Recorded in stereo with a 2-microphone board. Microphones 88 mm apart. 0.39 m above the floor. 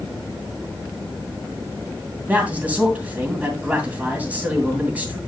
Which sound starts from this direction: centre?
A man speaking, at 2.3 s.